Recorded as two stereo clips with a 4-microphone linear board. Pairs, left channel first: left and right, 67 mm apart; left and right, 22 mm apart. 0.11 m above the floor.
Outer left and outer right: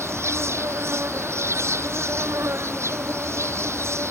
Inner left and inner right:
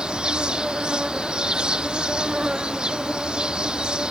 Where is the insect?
45° right (ahead or behind).